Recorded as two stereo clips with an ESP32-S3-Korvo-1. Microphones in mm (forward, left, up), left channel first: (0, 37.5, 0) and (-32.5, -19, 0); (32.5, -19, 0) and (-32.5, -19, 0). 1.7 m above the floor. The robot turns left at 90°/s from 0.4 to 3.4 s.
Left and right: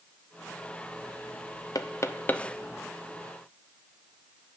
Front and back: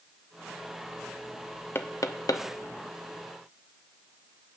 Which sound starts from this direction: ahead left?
Knocking, at 1.8 s.